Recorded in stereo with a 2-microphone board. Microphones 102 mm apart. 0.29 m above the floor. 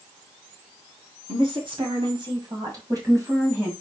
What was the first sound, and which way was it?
A woman speaking, 60° right (ahead or behind).